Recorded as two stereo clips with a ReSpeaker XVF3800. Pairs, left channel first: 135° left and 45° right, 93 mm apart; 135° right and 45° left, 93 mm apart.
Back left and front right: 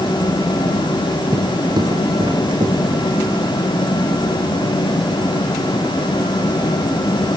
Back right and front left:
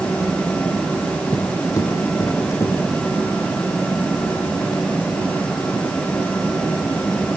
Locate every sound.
1.3 s footsteps: 85° right, 3 m; by 3.1 s 75° right, 4.5 m